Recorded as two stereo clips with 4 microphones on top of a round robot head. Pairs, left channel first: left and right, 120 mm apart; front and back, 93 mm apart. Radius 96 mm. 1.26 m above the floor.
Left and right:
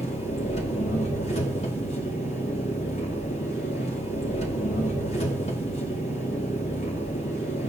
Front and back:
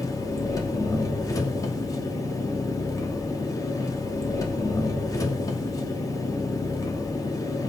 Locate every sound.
0.0 s an engine running: 50° left, 2.5 m